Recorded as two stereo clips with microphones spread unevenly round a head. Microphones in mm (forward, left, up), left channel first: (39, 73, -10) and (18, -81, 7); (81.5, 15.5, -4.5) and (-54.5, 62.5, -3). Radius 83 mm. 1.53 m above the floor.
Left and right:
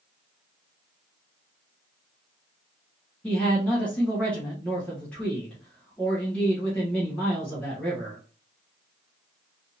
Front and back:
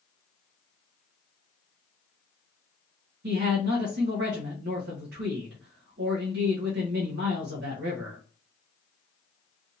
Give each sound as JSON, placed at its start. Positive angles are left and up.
{"t": 3.2, "sound": "a man speaking", "azimuth_deg": 165, "distance_m": 1.0}